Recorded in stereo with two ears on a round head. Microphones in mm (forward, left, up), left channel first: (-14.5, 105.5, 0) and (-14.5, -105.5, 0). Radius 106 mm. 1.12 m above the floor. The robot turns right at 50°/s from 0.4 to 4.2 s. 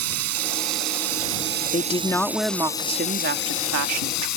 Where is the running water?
105° right; by 4.4 s 85° left.